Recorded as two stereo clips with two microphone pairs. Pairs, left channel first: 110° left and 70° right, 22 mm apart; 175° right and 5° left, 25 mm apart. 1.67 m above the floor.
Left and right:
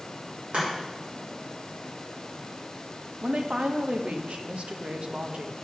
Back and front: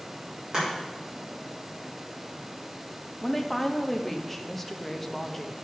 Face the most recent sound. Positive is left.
turn(degrees=-90)